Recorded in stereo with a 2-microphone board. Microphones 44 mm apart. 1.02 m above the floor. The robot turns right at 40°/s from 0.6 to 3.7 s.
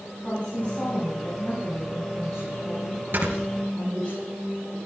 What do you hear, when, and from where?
0.2 s a woman speaking: 30° left, 6.5 m; by 4.1 s 155° left, 6.5 m
3.1 s snoring: 55° right (ahead or behind), 3.5 m; by 3.3 s 65° right (ahead or behind), 3.5 m